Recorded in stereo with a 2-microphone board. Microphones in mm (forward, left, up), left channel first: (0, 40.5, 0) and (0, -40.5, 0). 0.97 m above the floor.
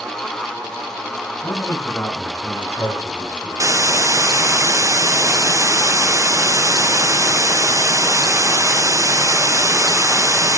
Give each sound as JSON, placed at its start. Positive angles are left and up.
{"t": 1.4, "sound": "a man speaking", "side_deg": 25, "distance_m": 9.0}
{"t": 3.6, "sound": "a hiss", "side_deg": -35, "distance_m": 0.6}